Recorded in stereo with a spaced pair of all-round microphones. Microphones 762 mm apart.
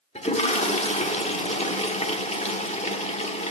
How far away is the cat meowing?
No cat meowing in this recording.